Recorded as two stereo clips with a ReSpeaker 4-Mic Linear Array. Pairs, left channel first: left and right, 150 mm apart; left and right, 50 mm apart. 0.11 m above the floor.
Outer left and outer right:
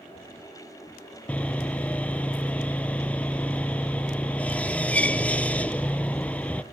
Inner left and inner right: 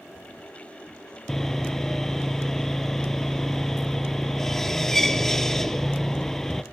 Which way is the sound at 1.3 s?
10° left (ahead or behind).